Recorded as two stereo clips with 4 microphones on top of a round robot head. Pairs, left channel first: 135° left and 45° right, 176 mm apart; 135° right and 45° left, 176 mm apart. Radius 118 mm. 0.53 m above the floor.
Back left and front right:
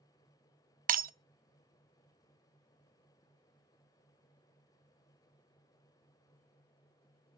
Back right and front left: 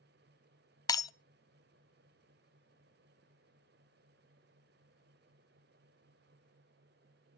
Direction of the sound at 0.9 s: 70° right.